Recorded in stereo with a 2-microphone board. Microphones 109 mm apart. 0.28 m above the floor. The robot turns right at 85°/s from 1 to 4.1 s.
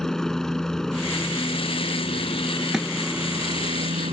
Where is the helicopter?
5° left; by 4.1 s 90° right.